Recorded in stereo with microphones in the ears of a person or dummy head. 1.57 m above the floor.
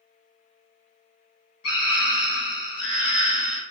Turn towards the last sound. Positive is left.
turn(degrees=70)  # may be behind; listen again after turning